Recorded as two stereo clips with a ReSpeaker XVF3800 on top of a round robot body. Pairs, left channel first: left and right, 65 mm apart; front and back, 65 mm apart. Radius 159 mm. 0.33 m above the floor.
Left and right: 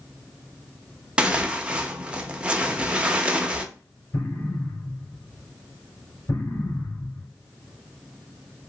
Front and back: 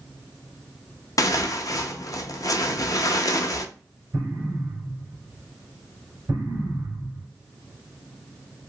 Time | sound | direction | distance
1.2 | tearing paper | 20° right | 0.7 m
4.1 | an explosion | 125° left | 2.5 m